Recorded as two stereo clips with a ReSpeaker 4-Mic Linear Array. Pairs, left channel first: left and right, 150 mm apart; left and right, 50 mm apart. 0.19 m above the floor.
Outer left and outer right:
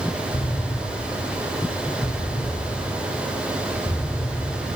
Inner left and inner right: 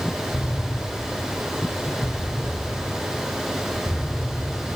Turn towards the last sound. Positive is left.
turn(degrees=50)  # may be behind; listen again after turning